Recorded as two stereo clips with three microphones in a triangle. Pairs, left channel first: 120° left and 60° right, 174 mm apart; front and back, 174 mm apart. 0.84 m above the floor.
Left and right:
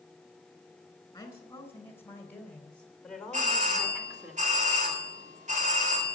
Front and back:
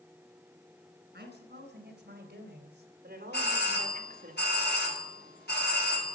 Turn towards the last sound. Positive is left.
turn(degrees=-15)